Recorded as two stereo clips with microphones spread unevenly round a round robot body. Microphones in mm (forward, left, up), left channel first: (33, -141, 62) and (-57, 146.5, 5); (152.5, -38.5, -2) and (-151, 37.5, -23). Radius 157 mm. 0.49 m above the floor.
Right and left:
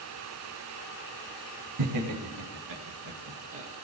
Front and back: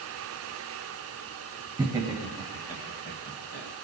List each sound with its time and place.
1.8 s laughter: 85° left, 3 m; by 3.7 s 40° left, 2.5 m